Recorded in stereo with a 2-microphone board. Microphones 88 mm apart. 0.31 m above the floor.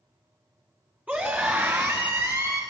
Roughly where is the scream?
Centre.